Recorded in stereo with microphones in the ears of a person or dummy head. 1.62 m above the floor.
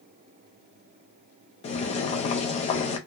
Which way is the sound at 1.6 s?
35° left (ahead or behind).